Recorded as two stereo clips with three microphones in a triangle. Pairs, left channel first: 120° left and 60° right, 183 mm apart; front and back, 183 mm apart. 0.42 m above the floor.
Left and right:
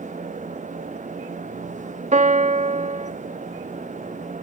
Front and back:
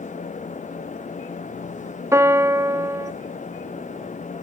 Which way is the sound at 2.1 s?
105° right.